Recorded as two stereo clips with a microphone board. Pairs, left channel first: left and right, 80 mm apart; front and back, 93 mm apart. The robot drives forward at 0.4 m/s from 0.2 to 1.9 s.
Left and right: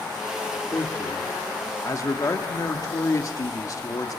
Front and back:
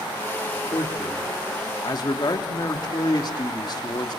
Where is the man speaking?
35° left, 2.5 m; by 4.2 s 40° left, 2 m.